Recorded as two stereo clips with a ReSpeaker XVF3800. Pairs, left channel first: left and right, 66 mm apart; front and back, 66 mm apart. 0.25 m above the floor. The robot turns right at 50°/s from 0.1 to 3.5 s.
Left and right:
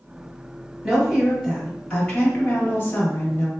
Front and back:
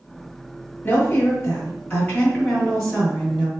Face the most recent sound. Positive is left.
turn(degrees=115)